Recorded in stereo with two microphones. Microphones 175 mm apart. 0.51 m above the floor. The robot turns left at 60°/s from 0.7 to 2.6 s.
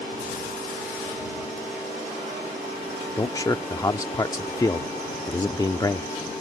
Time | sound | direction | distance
3.2 | a man speaking | 20° left (ahead or behind) | ?